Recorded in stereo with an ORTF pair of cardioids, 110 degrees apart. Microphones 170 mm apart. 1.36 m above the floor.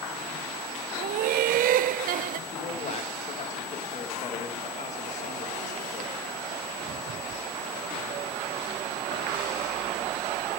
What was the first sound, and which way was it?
Laughter, 60° right.